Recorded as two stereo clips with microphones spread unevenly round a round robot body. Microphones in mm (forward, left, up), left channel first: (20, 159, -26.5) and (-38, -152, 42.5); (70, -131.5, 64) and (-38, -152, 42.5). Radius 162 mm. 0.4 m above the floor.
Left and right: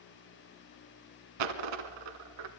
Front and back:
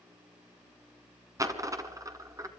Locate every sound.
1.4 s a dropped coin: 105° right, 1.6 m